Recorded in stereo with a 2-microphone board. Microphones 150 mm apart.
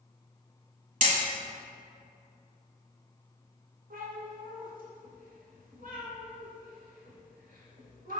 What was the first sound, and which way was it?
Hammering, 60° right (ahead or behind).